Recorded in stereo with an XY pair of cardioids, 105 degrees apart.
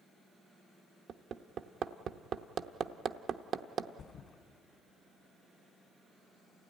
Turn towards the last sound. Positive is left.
turn(degrees=55)